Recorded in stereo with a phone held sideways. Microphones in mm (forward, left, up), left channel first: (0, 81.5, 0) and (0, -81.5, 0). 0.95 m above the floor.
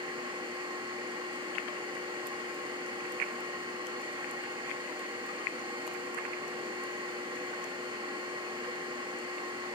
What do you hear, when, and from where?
0.0 s a machine running: 30° right (ahead or behind), 1.8 m